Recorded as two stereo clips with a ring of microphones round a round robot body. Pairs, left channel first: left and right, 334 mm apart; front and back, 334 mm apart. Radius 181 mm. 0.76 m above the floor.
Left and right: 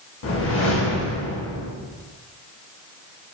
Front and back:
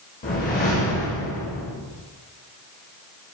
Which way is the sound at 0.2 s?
55° left.